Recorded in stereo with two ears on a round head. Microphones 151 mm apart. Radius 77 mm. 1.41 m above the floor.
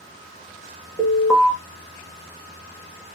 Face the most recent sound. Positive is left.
turn(degrees=0)  # may be behind; listen again after turning